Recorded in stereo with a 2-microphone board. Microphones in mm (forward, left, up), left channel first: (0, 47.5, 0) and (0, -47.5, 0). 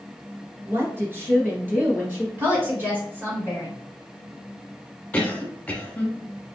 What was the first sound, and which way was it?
A woman speaking, 30° right (ahead or behind).